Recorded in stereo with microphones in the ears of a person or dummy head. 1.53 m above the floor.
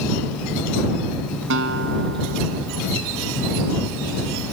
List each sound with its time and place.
1.5 s a guitar: 60° right (ahead or behind)